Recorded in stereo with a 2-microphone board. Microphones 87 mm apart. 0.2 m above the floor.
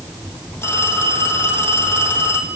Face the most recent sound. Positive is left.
turn(degrees=30)  # may be behind; listen again after turning